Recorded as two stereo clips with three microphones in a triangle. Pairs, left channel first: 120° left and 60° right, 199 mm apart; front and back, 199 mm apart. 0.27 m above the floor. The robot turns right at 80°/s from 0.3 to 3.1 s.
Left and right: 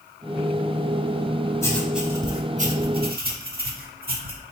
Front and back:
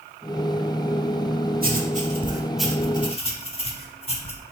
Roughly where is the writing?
Behind.